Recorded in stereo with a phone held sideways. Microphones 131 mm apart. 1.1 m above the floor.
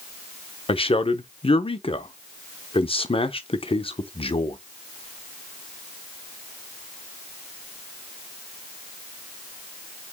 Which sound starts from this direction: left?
A man speaking, at 0.7 s.